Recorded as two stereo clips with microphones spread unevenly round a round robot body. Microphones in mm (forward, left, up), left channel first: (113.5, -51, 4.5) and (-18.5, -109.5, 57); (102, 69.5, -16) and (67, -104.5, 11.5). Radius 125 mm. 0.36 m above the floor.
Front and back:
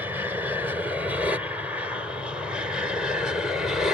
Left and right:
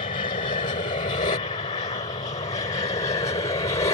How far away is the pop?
I don't hear a pop.